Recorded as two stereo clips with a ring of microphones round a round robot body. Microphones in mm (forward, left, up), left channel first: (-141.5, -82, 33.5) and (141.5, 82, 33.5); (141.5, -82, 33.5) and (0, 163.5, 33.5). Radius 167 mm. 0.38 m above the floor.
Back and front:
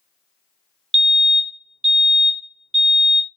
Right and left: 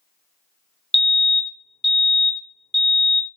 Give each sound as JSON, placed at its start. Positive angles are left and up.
{"t": 0.9, "sound": "a fire alarm", "azimuth_deg": 75, "distance_m": 1.8}